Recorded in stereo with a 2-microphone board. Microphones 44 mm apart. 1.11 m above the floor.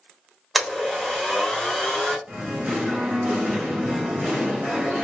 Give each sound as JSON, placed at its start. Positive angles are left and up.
{"t": 0.6, "sound": "a blender", "side_deg": 0, "distance_m": 1.0}
{"t": 2.3, "sound": "singing", "side_deg": -40, "distance_m": 1.4}